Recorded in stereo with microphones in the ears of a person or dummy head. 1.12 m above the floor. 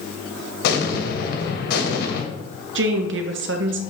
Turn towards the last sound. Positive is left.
turn(degrees=-60)  # may be behind; listen again after turning